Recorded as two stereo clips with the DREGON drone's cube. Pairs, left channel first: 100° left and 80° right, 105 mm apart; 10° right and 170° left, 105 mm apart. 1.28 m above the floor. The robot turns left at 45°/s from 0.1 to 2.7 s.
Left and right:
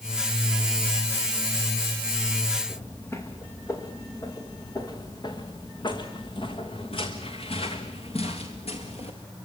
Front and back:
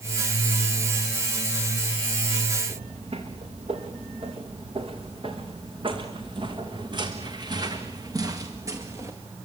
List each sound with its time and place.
2.7 s footsteps: 170° left, 5 m; by 9.2 s 110° left, 4.5 m